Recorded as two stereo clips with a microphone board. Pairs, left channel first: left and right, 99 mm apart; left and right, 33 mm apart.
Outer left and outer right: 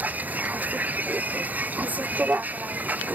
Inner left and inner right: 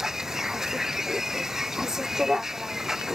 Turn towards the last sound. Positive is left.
turn(degrees=-15)  # may be behind; listen again after turning